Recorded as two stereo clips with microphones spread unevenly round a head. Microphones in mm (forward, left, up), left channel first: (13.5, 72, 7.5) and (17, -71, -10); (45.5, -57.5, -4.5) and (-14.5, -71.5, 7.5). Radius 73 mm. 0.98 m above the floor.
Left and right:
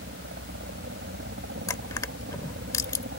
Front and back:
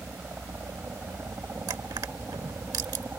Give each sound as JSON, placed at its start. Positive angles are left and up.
{"t": 0.0, "sound": "a helicopter", "azimuth_deg": -105}
{"t": 1.7, "sound": "crushing", "azimuth_deg": 160}